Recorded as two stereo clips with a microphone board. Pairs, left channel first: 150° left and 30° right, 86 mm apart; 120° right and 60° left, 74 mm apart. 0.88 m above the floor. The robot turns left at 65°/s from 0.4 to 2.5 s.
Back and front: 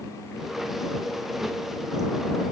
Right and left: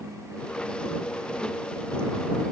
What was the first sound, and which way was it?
Only background noise.